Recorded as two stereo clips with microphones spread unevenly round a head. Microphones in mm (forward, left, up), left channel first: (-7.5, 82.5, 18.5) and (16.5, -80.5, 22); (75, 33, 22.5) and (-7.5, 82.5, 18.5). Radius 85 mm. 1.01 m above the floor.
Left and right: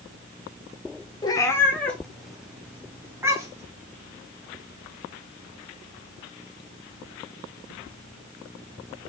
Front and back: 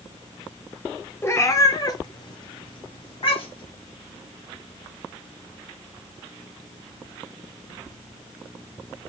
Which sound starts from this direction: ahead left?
A cat meowing, at 1.2 s.